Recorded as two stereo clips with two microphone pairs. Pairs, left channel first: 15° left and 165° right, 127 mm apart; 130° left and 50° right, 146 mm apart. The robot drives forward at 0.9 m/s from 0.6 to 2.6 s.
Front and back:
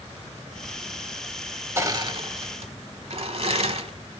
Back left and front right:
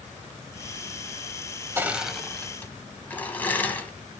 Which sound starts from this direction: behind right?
Crushing, at 1.8 s.